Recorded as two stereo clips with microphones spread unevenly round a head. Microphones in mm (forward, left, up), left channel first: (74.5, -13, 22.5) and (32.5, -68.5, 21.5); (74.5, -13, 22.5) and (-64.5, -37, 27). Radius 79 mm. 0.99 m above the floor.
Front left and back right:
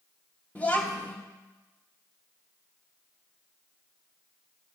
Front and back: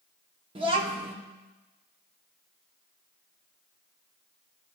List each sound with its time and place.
0.6 s a child speaking: 130° left, 1.1 m